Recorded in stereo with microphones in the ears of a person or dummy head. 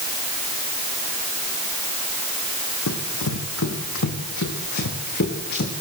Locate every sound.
2.9 s running footsteps: 75° left (ahead or behind), 5.5 m; by 5.7 s 55° left (ahead or behind), 6 m